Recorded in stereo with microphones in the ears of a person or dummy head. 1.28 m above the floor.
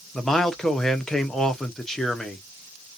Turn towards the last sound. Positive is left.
turn(degrees=0)  # may be behind; listen again after turning